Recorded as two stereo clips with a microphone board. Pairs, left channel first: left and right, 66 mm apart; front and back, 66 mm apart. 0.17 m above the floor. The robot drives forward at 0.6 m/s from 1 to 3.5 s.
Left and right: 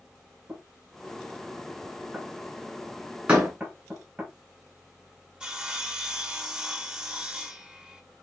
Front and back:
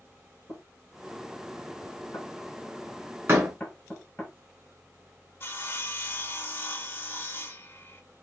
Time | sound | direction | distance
0.5 | knocking | 10° right | 2.5 m
3.3 | a door slam | 155° right | 1.3 m
5.4 | sawing | 20° right | 0.5 m